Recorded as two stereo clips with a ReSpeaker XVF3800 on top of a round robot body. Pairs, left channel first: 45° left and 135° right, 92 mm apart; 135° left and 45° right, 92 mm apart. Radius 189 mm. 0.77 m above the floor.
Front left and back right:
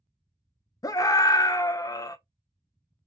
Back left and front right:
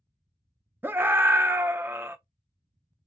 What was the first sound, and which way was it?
A scream, 15° left.